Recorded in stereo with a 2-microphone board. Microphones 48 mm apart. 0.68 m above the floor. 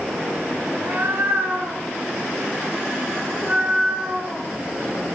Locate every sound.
0.7 s a cat meowing: 60° right (ahead or behind), 2.5 m; by 4.5 s 10° right (ahead or behind), 2.5 m